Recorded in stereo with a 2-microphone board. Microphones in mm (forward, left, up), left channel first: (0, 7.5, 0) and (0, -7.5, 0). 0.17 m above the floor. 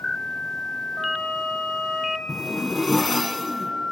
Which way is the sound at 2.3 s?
10° left (ahead or behind).